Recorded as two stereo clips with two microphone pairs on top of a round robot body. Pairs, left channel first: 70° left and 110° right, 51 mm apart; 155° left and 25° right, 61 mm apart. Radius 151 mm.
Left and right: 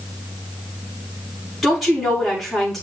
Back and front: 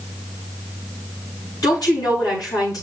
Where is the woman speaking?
160° left, 8 m.